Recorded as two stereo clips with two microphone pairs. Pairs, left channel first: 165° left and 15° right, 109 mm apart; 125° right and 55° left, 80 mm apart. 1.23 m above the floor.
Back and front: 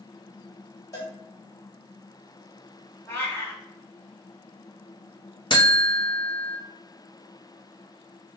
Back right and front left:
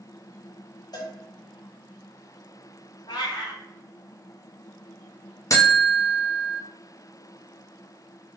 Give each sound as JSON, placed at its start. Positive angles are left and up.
{"t": 0.9, "sound": "a cowbell", "azimuth_deg": -140, "distance_m": 1.4}
{"t": 3.1, "sound": "a cat meowing", "azimuth_deg": -125, "distance_m": 1.0}
{"t": 5.5, "sound": "a buzzer", "azimuth_deg": -160, "distance_m": 0.7}